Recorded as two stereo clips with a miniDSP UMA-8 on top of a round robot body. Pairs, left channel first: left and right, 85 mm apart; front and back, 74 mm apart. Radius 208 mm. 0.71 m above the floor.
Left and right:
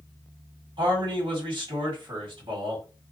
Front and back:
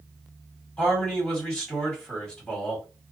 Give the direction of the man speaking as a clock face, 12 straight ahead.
2 o'clock.